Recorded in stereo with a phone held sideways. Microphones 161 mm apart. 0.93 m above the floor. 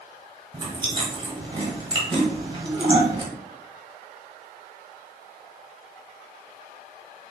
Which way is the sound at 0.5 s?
30° right (ahead or behind).